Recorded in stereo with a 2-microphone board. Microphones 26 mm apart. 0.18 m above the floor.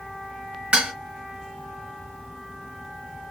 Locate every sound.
0.7 s dishes clattering: 50° right (ahead or behind), 1.6 m